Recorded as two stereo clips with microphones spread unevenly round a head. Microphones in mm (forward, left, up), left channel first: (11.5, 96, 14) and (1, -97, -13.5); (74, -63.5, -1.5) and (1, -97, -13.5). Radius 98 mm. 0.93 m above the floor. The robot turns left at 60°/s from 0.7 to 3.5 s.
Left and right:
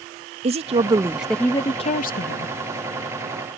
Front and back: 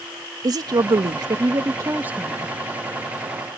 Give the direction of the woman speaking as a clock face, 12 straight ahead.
5 o'clock.